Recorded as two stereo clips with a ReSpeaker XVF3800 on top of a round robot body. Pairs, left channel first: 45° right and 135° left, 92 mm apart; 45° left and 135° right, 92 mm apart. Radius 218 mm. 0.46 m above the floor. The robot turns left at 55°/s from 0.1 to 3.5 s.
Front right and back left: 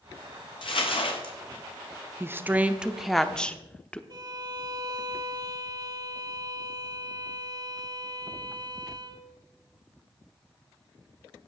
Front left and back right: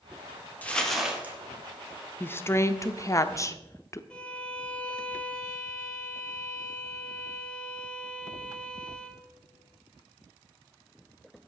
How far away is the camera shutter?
No camera shutter in this recording.